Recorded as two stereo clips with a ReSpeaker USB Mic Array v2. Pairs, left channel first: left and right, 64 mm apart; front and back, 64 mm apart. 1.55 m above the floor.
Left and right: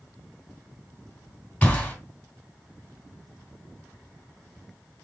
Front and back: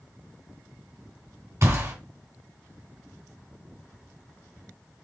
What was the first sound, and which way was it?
A gunshot, 155° left.